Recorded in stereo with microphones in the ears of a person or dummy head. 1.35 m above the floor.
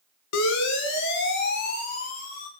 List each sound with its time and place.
0.3 s a siren: 70° left (ahead or behind), 5 m; by 2.5 s 45° left (ahead or behind), 5.5 m